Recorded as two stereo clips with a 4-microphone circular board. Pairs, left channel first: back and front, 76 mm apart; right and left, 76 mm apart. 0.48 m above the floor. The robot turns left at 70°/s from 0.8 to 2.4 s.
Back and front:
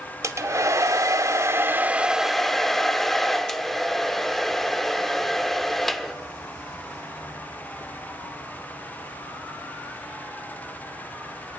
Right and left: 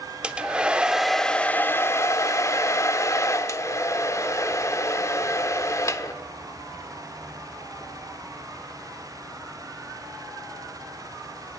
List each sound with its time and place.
0.2 s a hair dryer: 15° left, 0.9 m; by 6.1 s 95° right, 0.9 m